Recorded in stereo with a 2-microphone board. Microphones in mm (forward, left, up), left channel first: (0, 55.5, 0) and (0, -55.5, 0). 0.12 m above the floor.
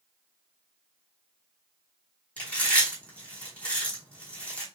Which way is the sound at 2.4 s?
10° left (ahead or behind).